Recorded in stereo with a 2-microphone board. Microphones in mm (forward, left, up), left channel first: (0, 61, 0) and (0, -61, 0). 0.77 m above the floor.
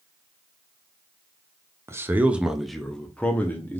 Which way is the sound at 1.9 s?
20° right (ahead or behind).